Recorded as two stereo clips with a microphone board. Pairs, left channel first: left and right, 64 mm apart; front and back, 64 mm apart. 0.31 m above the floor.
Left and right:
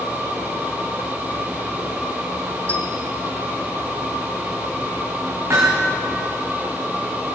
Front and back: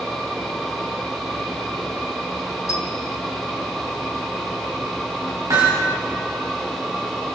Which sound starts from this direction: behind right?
Hammering, at 5.5 s.